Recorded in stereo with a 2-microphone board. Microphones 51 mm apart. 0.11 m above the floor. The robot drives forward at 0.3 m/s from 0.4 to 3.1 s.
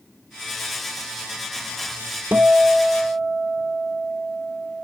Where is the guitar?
40° right (ahead or behind), 0.7 m; by 4.8 s 30° right (ahead or behind), 0.9 m.